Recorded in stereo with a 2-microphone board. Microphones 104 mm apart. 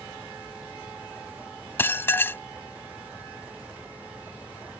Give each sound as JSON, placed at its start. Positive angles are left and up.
{"t": 1.8, "sound": "dishes clattering", "side_deg": 25}